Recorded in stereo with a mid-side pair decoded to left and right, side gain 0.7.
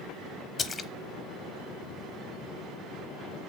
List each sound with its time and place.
0.6 s a splash: 25° left, 1.0 m